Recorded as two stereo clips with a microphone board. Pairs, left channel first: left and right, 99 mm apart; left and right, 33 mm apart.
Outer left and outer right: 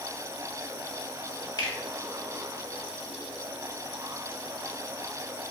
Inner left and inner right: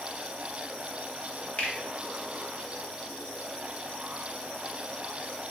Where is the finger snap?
45° left (ahead or behind), 1.0 m.